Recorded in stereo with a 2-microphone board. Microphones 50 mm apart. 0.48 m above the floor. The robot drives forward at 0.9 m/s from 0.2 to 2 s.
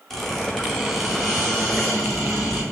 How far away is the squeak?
About 1.7 m.